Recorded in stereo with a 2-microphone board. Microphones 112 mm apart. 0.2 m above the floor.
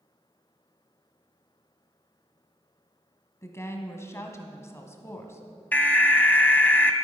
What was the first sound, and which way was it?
A woman speaking, 25° left (ahead or behind).